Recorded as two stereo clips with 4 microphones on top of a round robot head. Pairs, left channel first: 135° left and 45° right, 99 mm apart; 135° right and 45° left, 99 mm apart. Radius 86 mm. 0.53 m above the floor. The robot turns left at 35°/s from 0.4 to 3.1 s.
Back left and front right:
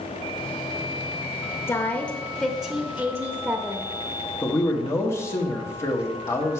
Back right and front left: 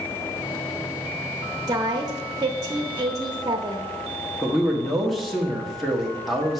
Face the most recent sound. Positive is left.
turn(degrees=135)